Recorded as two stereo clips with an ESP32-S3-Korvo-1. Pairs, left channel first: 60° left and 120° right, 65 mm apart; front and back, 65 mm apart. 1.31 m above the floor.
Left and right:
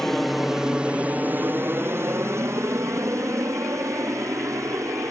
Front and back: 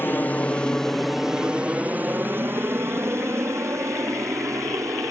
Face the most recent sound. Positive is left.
turn(degrees=-150)